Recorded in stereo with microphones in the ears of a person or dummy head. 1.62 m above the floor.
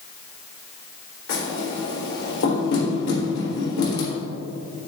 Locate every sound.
1.3 s knocking: 80° left, 3.5 m